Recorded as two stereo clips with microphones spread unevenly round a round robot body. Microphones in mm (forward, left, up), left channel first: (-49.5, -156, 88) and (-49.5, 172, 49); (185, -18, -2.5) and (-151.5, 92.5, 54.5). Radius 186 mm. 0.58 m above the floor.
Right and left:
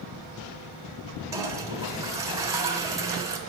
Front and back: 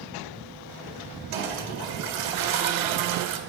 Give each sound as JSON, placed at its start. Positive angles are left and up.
{"t": 1.3, "sound": "a toilet flushing", "azimuth_deg": 170, "distance_m": 1.4}